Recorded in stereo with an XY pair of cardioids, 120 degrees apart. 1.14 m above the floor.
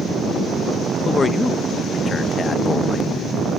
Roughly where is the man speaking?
Ahead left.